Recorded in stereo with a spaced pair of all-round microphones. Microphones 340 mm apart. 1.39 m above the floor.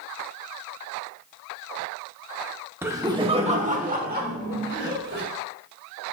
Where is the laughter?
5° right (ahead or behind), 1.0 m; by 5.2 s 35° right (ahead or behind), 2 m.